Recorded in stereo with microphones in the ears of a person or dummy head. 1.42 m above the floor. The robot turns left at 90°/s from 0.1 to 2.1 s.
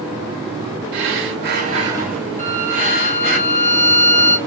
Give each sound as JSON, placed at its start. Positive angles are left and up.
{"t": 0.9, "sound": "breathing", "azimuth_deg": -65, "distance_m": 0.9}
{"t": 2.4, "sound": "a violin", "side_deg": 10, "distance_m": 1.4}